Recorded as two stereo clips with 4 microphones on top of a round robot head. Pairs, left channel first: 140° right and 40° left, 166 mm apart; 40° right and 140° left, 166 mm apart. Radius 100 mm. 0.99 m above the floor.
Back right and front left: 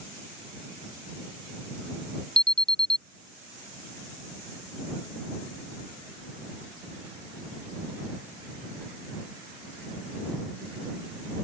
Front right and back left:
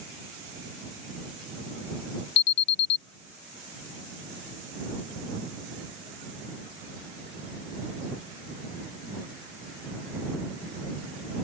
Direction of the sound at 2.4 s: 55° right.